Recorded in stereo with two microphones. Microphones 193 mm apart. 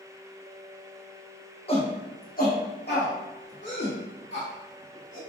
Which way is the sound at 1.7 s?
30° left (ahead or behind).